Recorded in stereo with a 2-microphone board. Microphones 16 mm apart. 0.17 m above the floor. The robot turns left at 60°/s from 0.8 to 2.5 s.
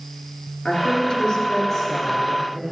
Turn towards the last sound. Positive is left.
turn(degrees=-25)